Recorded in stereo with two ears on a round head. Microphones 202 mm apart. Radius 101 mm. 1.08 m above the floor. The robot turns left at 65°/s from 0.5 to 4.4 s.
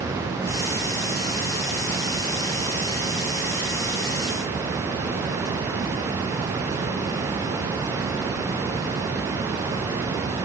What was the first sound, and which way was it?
Only background noise.